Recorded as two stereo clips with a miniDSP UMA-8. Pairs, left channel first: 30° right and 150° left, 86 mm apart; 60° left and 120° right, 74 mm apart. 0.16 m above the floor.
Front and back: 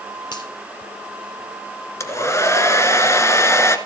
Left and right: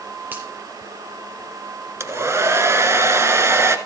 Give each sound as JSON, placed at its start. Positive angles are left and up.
{"t": 0.3, "sound": "a finger snap", "azimuth_deg": -55, "distance_m": 4.0}
{"t": 2.0, "sound": "a hair dryer", "azimuth_deg": -75, "distance_m": 1.3}